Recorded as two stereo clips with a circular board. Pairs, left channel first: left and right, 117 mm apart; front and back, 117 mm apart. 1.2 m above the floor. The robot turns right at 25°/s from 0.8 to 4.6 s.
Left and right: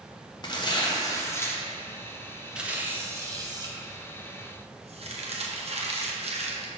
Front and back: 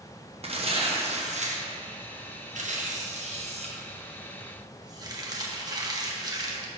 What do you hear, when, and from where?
0.4 s tearing paper: 145° left, 0.9 m; by 6.7 s 120° right, 0.9 m